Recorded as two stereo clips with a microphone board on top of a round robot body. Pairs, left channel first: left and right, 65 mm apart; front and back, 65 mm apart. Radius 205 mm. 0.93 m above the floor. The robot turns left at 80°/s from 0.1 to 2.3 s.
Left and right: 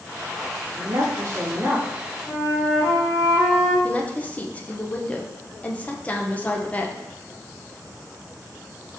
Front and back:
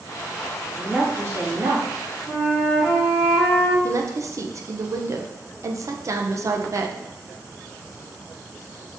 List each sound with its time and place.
0.7 s a woman speaking: 90° right, 1.8 m; by 1.9 s straight behind, 1.8 m
2.3 s a flute: 95° left, 2.5 m; by 3.7 s 90° left, 2.5 m
3.8 s a woman speaking: 155° left, 0.7 m